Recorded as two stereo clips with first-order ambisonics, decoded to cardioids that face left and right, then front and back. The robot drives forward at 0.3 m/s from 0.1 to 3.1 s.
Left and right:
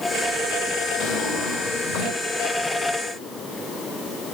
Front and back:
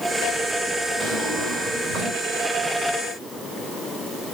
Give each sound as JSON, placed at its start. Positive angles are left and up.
{"t": 1.0, "sound": "a drawer", "azimuth_deg": 115, "distance_m": 1.9}